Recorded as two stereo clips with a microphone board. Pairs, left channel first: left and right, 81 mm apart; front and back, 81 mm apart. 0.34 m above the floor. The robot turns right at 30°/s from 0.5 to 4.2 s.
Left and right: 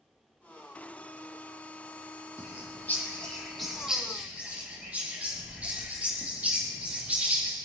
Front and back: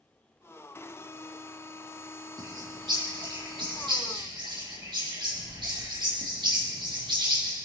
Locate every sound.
2.4 s a bird: 145° left, 4 m; by 7.5 s 160° right, 4 m